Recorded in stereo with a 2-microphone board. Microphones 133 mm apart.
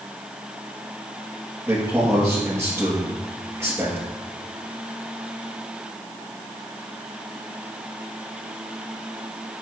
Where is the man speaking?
20° right (ahead or behind), 2.5 m.